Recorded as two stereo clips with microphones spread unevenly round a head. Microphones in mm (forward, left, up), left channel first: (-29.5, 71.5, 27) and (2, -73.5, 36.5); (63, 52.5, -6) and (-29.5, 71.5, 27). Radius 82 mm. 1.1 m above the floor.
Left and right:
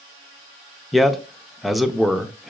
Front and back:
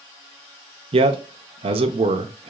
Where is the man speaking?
170° right, 0.5 m.